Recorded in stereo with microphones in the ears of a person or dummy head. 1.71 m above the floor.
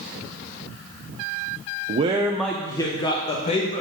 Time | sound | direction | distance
1.9 | a man speaking | 40° right (ahead or behind) | 0.9 m